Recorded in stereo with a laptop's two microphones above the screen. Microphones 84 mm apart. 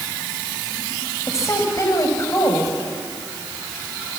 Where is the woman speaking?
35° left (ahead or behind), 4.5 m.